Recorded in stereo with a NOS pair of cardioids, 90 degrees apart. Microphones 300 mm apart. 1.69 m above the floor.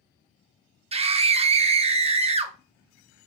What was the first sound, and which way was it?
A scream, 20° right.